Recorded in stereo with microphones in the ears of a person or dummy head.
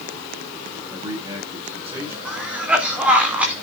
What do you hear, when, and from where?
0.9 s a man speaking: 25° right (ahead or behind), 6 m
2.2 s a cough: 5° right (ahead or behind), 3 m